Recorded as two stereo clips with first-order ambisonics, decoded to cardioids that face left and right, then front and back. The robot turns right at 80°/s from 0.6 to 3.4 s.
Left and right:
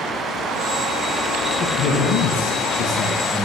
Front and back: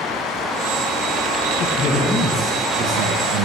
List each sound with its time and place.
1.6 s a man speaking: 35° left, 1.1 m; by 3.5 s 175° left, 1.1 m